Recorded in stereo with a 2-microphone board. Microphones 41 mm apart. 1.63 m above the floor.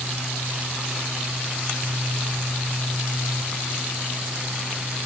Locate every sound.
Only background noise.